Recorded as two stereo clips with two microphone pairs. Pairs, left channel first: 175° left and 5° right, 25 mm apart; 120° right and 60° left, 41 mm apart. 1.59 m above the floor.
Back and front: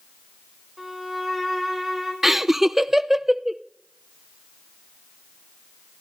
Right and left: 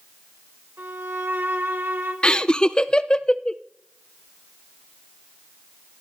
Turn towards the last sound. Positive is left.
turn(degrees=-75)